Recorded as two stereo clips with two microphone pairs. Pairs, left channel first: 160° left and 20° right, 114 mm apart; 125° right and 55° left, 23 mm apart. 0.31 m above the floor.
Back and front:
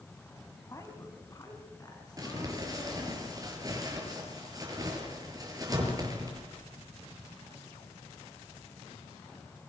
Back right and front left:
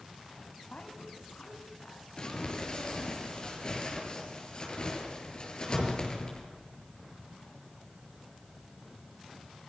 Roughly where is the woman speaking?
Behind right.